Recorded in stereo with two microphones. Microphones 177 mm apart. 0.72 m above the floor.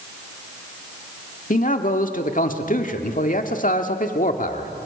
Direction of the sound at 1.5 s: 55° left (ahead or behind).